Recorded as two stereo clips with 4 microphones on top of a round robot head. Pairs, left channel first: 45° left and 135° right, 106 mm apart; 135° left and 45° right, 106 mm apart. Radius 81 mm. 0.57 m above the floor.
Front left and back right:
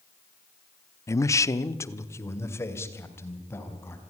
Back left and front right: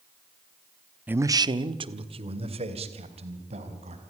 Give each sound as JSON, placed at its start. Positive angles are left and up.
{"t": 1.1, "sound": "a man speaking", "azimuth_deg": 15, "distance_m": 0.8}